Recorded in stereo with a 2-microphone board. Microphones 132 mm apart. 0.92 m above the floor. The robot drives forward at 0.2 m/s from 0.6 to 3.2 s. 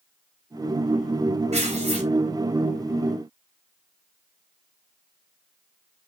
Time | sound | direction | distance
1.5 | tearing paper | 60° right (ahead or behind) | 3 m